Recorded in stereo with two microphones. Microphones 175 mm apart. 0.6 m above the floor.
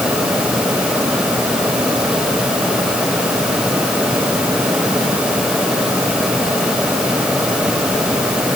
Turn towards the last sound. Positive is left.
No sound to turn to.